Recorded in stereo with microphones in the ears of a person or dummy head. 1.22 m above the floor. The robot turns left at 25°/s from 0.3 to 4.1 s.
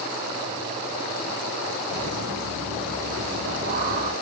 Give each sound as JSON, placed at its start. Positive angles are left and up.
{"t": 1.9, "sound": "laughter", "azimuth_deg": -90, "distance_m": 3.5}